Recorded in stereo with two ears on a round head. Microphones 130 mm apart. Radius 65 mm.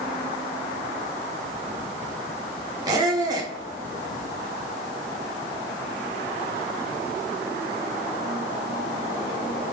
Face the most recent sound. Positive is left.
turn(degrees=-25)  # may be behind; listen again after turning